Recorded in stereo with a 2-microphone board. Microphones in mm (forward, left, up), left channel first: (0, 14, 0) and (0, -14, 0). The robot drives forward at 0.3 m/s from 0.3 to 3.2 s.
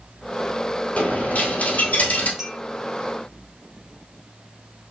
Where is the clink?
15° right (ahead or behind), 1.8 m.